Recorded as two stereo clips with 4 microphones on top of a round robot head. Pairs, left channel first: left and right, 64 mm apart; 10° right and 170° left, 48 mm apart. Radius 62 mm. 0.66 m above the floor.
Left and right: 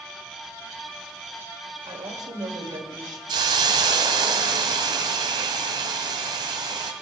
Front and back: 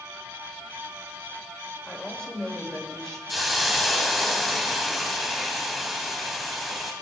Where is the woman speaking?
90° right, 3 m.